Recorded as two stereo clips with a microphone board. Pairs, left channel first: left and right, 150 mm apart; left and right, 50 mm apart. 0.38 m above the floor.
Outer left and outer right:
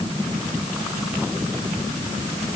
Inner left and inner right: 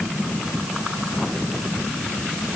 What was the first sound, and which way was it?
Only background noise.